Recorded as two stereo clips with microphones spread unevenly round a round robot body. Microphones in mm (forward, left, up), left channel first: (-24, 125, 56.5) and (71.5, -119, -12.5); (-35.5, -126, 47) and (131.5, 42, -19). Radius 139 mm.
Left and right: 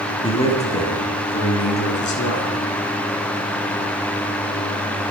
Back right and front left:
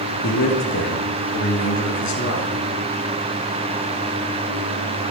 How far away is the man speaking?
About 4.5 m.